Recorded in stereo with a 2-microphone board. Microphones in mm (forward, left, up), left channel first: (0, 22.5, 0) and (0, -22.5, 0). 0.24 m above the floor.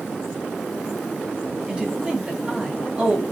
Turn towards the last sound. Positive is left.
turn(degrees=-20)  # may be behind; listen again after turning